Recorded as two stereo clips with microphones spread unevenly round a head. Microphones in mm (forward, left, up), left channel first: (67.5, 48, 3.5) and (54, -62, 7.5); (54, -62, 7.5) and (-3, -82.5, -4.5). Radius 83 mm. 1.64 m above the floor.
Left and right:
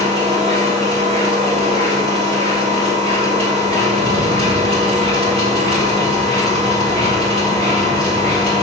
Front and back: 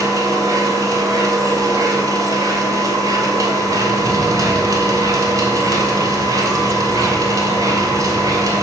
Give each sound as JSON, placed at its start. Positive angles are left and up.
{"t": 0.0, "sound": "a machine running", "azimuth_deg": -140, "distance_m": 2.5}